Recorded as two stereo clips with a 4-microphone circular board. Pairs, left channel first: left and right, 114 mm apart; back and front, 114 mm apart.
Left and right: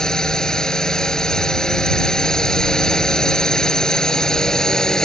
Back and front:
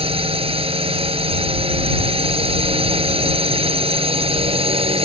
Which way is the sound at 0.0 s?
5° left.